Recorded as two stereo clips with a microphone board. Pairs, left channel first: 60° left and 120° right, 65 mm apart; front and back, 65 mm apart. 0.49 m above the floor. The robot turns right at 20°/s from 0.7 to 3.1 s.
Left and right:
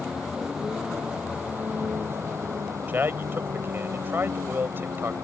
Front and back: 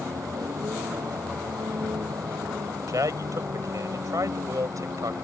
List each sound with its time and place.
0.0 s a vehicle: 160° left; by 5.2 s 155° right
2.9 s a man speaking: 175° right; by 5.1 s 170° right